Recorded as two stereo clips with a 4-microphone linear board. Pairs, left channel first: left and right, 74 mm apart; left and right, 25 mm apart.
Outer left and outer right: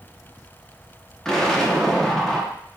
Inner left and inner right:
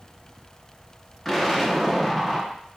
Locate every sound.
1.2 s an explosion: 10° left (ahead or behind), 0.8 m